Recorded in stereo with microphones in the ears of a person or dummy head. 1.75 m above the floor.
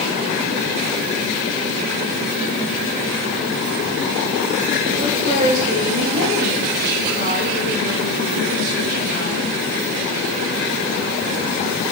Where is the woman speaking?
55° right (ahead or behind), 2.5 m.